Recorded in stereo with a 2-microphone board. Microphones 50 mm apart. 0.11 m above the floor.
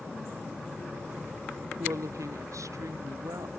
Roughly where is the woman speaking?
Right.